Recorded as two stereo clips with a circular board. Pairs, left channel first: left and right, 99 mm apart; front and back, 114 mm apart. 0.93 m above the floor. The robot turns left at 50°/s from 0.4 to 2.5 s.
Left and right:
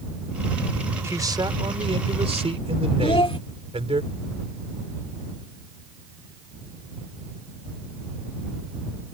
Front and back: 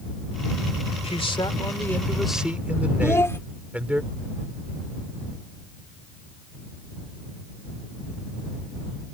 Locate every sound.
1.0 s a man speaking: 30° right; by 4.0 s 100° right
3.0 s a child speaking: 65° left